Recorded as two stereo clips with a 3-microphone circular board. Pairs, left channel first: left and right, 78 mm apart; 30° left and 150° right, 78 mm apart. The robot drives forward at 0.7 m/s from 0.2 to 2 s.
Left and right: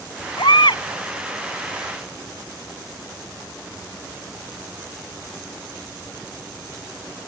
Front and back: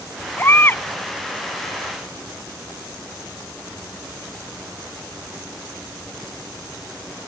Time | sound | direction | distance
0.4 | a baby crying | 90° left | ?